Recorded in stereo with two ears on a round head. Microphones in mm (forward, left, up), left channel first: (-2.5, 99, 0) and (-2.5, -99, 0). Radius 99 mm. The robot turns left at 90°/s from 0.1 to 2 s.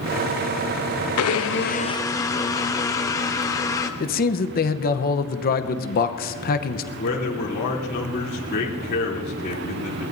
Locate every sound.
1.2 s a blender: 90° left, 0.8 m; by 3.9 s 15° left, 0.8 m
4.0 s a man speaking: 40° left (ahead or behind), 0.9 m
7.0 s a man speaking: 45° left (ahead or behind), 3 m